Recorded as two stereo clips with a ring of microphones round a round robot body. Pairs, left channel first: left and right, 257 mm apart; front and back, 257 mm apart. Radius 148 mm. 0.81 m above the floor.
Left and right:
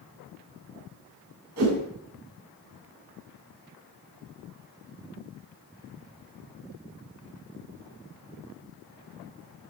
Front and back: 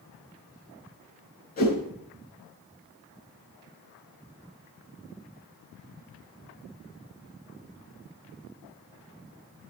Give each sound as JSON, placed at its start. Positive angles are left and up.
{"t": 1.6, "sound": "a whoosh", "azimuth_deg": -55, "distance_m": 6.5}